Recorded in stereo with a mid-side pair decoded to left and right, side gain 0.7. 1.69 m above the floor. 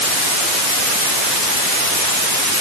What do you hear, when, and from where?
Only background noise.